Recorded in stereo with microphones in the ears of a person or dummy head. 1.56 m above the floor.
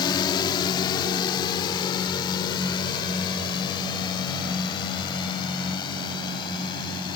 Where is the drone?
25° left (ahead or behind).